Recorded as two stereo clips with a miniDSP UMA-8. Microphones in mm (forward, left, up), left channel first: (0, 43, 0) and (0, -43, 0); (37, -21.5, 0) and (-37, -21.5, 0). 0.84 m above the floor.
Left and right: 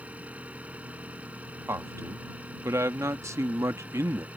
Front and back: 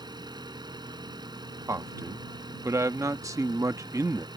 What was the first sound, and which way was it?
An engine running, 165° right.